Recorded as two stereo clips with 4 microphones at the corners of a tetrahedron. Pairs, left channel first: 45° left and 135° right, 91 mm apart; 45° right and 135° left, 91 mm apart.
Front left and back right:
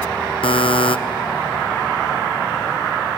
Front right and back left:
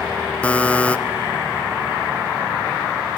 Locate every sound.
0.4 s a buzzer: 30° left, 0.7 m